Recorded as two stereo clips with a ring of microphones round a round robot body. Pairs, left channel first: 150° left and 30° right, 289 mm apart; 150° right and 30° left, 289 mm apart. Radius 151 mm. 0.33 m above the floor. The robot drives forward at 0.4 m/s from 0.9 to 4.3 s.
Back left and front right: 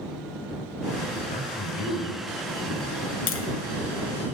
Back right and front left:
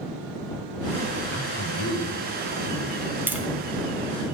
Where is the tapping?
110° left, 1.3 m; by 3.5 s 115° left, 1.3 m.